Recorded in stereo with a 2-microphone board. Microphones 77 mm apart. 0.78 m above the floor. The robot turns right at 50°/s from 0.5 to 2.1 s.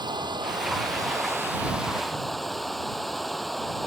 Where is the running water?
80° right; by 3.9 s straight ahead.